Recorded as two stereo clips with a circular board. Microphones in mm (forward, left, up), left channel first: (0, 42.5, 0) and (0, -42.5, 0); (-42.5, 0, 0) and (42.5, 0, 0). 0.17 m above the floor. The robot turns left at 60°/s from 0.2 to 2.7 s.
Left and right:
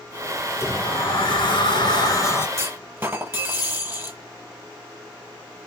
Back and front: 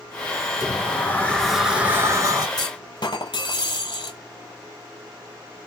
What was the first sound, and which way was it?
A sliding door, 145° left.